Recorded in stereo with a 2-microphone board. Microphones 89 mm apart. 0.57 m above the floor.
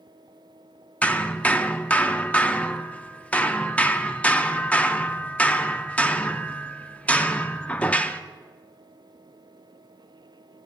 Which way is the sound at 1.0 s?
15° left (ahead or behind).